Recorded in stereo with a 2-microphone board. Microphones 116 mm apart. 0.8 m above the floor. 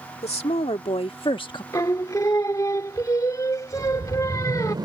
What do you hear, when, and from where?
0.2 s a woman speaking: 65° left (ahead or behind); by 1.6 s 40° left (ahead or behind)
1.7 s singing: 30° left (ahead or behind)
3.8 s a whoosh: 40° right (ahead or behind)